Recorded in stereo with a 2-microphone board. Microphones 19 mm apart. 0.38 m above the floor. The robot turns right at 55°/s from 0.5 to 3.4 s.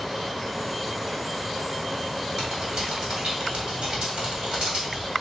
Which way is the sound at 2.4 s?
35° right (ahead or behind).